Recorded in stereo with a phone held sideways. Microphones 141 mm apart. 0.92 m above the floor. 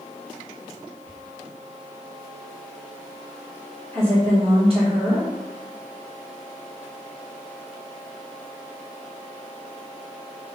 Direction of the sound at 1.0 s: 45° right (ahead or behind).